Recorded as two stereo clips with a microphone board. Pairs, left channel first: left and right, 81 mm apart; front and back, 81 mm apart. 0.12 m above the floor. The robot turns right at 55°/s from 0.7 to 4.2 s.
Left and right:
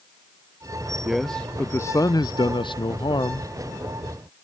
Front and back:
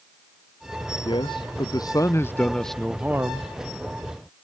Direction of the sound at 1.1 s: 5° right.